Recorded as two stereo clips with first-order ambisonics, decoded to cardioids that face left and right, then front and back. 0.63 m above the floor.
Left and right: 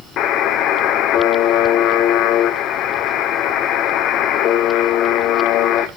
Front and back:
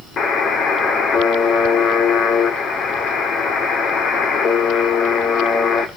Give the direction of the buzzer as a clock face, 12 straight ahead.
10 o'clock.